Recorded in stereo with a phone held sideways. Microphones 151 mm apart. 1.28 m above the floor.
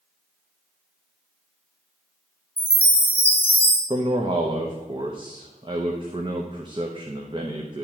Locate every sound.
2.6 s a chime: 15° left (ahead or behind), 1.6 m
3.9 s a man speaking: 30° right (ahead or behind), 0.9 m